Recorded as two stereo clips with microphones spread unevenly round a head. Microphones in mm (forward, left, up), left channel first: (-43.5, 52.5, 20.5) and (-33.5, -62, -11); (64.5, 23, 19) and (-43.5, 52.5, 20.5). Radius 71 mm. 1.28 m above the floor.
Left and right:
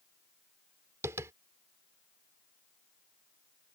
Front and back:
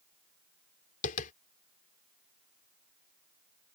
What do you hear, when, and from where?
1.0 s tapping: 5° right